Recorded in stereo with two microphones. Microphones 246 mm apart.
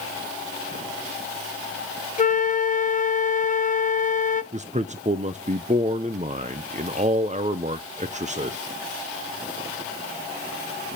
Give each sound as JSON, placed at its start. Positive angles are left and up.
{"t": 2.2, "sound": "a flute", "side_deg": 35, "distance_m": 0.5}
{"t": 4.5, "sound": "a man speaking", "side_deg": -30, "distance_m": 0.5}